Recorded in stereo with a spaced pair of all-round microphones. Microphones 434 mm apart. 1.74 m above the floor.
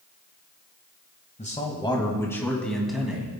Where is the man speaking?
15° left (ahead or behind), 1.8 m; by 3.3 s 5° right (ahead or behind), 2.5 m.